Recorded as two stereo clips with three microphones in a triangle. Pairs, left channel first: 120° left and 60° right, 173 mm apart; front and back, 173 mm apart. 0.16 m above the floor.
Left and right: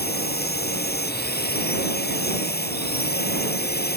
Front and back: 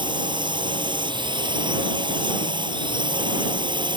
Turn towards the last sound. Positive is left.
turn(degrees=120)